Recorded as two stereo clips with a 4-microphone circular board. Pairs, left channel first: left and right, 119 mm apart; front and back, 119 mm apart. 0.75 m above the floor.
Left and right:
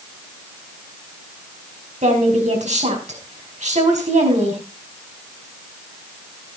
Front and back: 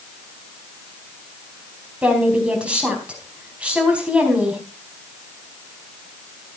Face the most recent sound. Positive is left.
turn(degrees=-100)